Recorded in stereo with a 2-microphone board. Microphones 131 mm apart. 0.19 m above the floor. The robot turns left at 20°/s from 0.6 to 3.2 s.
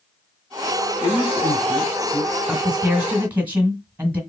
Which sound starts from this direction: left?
A man speaking, at 1.0 s.